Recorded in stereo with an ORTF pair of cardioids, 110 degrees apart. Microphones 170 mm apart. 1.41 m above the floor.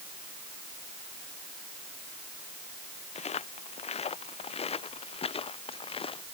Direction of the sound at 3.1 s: 40° left.